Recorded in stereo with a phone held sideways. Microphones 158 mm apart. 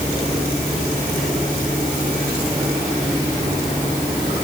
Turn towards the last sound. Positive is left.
No sound to turn to.